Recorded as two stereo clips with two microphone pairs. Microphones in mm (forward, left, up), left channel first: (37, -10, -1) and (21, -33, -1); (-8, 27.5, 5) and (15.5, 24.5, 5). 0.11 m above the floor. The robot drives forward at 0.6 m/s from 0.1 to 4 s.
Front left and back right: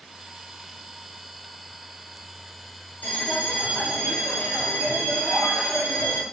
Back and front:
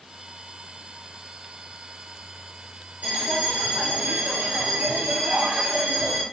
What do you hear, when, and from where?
3.0 s a bell: 30° left, 8 m; by 6.2 s 35° left, 7.5 m